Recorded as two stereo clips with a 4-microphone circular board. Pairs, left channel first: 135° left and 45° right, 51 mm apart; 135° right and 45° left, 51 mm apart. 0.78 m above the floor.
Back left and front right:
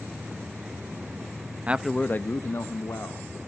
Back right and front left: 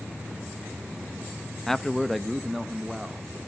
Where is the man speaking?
60° right, 0.6 m; by 3.4 s 135° left, 2 m.